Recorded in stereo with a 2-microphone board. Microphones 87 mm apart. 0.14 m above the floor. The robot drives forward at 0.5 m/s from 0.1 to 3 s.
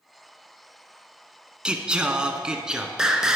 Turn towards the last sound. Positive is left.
turn(degrees=-10)  # may be behind; listen again after turning